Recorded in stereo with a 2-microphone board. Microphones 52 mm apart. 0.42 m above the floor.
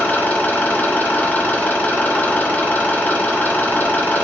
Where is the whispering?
I don't hear whispering.